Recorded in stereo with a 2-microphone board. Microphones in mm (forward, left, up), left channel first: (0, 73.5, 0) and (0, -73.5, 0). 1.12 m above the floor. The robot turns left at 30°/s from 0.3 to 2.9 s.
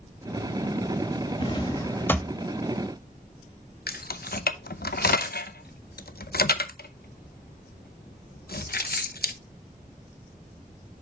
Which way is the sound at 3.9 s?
85° left.